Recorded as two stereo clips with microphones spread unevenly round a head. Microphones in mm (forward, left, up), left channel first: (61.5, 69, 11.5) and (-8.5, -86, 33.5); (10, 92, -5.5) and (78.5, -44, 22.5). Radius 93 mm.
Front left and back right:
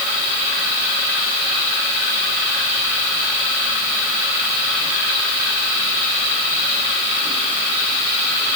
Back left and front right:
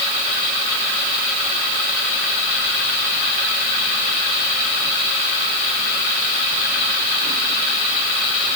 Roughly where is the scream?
No scream in this recording.